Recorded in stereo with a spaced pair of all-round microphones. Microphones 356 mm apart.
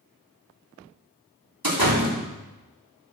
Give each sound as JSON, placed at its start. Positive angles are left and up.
{"t": 1.6, "sound": "a door slam", "side_deg": -85, "distance_m": 3.0}